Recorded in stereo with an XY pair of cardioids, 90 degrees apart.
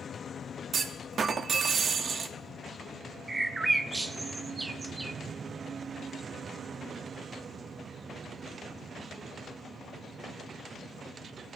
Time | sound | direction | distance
0.7 | a clunk | 55° right | 0.9 m
3.3 | a bird | 25° right | 0.9 m